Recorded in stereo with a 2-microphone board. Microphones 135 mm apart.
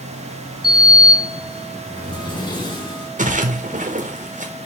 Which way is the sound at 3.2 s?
75° right (ahead or behind).